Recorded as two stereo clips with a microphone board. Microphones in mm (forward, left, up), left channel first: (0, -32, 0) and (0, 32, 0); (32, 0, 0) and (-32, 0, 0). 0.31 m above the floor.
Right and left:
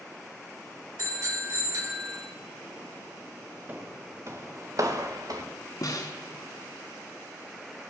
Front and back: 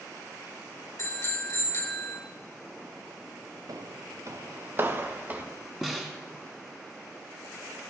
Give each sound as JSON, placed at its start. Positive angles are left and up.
{"t": 1.0, "sound": "a bicycle bell", "azimuth_deg": 50, "distance_m": 3.5}
{"t": 3.7, "sound": "footsteps", "azimuth_deg": 155, "distance_m": 1.6}
{"t": 5.8, "sound": "a snare drum", "azimuth_deg": -95, "distance_m": 2.0}